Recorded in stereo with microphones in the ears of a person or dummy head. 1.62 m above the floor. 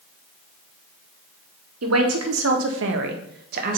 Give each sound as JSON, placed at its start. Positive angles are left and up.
{"t": 1.8, "sound": "a man speaking", "side_deg": -75, "distance_m": 1.3}